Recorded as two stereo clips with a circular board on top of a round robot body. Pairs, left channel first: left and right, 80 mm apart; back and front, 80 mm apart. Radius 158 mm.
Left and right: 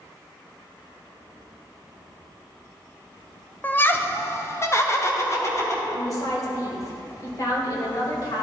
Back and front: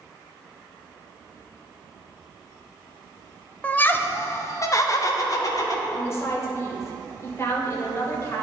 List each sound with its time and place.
3.6 s laughter: 125° left, 0.9 m; by 5.8 s 140° left, 2 m
5.9 s a woman speaking: 125° left, 2 m